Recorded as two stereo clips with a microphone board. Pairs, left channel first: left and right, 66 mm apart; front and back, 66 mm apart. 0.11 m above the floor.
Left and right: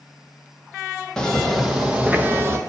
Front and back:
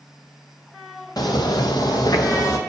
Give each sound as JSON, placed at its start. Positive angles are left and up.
{"t": 1.2, "sound": "footsteps", "azimuth_deg": 10, "distance_m": 1.1}